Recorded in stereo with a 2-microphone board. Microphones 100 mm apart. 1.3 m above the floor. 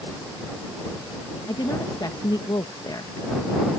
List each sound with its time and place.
1.5 s a woman speaking: 45° left (ahead or behind)